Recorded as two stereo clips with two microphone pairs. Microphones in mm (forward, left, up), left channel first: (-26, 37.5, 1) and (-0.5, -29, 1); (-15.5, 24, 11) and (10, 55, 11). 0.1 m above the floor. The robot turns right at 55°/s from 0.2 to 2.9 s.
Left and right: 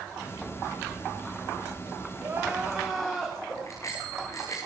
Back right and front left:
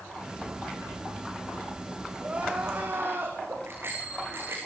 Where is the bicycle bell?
65° left, 6.5 m.